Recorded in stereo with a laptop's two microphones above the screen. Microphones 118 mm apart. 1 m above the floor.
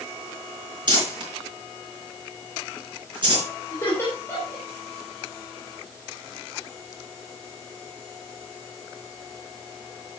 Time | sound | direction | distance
0.9 | crumpling | 45° right (ahead or behind) | 4.5 m
3.7 | laughter | 20° left (ahead or behind) | 3 m